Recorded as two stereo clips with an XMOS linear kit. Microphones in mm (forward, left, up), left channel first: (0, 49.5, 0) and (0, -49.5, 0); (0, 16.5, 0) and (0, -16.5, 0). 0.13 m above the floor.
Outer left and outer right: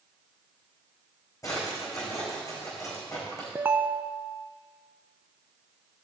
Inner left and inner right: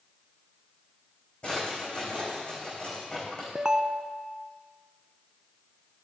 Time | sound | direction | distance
1.4 | a drawer | 35° left (ahead or behind) | 5.5 m
3.5 | a ringtone | 20° right (ahead or behind) | 0.5 m